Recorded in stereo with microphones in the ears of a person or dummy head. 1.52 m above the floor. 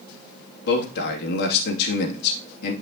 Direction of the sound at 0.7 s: 60° left (ahead or behind).